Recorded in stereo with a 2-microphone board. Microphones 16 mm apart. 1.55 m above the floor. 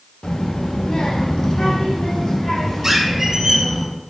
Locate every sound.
0.2 s a child speaking: 65° left (ahead or behind), 1.5 m; by 3.8 s 40° left (ahead or behind), 3 m
2.8 s a squeak: 30° right (ahead or behind), 1.6 m